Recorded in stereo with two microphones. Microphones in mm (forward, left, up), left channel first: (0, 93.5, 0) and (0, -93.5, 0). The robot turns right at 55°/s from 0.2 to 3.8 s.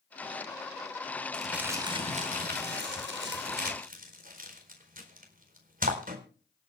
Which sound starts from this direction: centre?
Crumpling, at 1.3 s.